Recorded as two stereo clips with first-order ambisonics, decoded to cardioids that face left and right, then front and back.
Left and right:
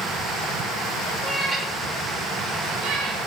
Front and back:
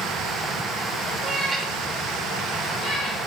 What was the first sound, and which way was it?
A cat meowing, 140° right.